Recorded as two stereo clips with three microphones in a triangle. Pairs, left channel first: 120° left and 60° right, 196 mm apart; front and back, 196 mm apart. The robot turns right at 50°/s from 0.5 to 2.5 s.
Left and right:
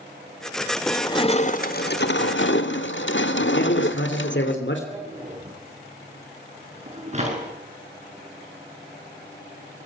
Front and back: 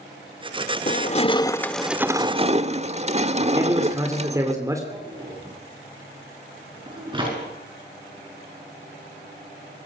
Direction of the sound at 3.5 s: 105° left.